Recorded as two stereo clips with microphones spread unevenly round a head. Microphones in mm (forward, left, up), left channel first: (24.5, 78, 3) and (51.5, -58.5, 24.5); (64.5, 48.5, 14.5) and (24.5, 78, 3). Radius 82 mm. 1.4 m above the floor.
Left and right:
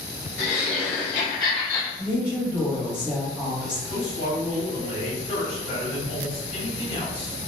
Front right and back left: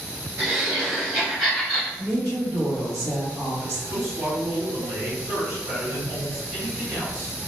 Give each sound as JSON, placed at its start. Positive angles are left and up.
{"t": 0.4, "sound": "laughter", "azimuth_deg": 95, "distance_m": 1.2}
{"t": 2.0, "sound": "a woman speaking", "azimuth_deg": 175, "distance_m": 1.2}
{"t": 3.9, "sound": "a man speaking", "azimuth_deg": 150, "distance_m": 1.4}